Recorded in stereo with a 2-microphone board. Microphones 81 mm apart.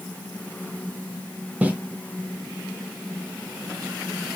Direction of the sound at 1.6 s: 15° right (ahead or behind).